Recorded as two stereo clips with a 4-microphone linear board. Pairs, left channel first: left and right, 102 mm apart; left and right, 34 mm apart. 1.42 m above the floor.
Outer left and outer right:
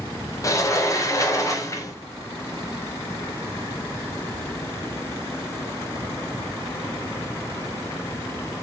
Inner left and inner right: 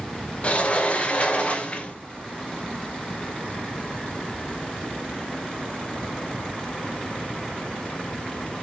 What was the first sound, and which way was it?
A sliding door, 35° left (ahead or behind).